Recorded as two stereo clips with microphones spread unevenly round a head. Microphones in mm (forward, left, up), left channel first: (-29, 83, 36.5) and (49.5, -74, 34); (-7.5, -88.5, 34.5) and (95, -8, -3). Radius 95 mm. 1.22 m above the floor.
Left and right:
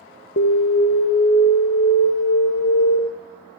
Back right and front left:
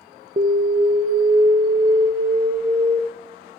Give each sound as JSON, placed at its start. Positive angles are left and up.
{"t": 0.4, "sound": "an alarm", "azimuth_deg": 85, "distance_m": 0.9}